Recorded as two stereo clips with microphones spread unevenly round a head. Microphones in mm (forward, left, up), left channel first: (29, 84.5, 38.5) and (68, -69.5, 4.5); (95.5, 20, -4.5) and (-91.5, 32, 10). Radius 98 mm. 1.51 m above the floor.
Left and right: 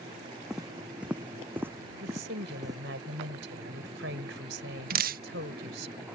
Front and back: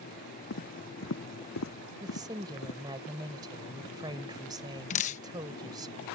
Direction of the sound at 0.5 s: 15° left.